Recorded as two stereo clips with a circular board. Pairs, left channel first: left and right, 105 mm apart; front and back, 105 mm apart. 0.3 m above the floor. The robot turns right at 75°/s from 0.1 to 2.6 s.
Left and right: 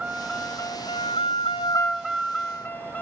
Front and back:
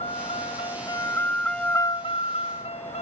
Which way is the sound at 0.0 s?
5° right.